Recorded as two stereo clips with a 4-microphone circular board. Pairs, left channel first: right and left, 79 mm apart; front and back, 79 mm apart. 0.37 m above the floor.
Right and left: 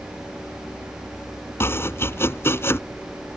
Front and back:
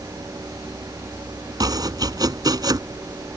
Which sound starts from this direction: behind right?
Chopping, at 1.6 s.